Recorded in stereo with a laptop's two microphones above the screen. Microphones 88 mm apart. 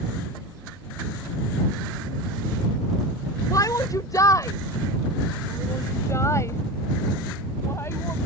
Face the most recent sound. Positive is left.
turn(degrees=30)  # may be behind; listen again after turning